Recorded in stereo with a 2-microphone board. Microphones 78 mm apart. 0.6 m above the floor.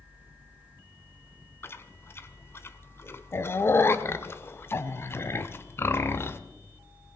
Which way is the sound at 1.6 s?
35° left (ahead or behind).